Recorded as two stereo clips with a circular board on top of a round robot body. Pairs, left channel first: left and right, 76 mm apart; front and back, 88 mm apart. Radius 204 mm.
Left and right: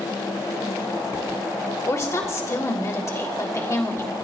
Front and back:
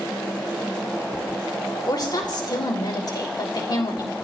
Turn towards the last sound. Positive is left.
turn(degrees=40)